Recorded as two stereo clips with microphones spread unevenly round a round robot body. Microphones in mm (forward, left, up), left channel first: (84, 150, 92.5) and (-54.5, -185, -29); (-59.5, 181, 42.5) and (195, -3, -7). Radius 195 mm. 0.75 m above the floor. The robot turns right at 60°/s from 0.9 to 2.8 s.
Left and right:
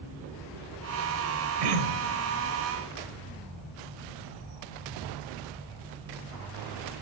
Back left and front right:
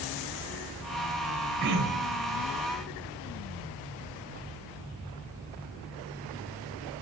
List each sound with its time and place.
1.6 s throat clearing: 105° right, 3.5 m; by 2.3 s 65° right, 3.5 m